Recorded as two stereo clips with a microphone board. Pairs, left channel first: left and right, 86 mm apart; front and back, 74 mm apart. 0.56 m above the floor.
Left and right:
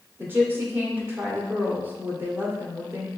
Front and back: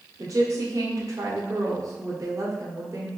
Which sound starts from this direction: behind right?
A woman speaking, at 0.2 s.